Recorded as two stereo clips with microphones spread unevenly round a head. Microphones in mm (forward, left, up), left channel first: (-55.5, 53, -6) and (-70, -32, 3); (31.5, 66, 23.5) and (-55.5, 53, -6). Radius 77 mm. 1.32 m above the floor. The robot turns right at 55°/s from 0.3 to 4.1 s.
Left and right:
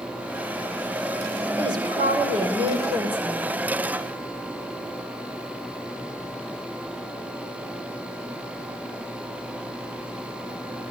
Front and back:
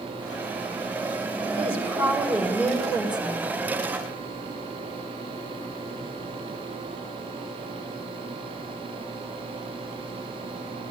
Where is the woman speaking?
135° right, 5 m; by 3.5 s 30° right, 5 m.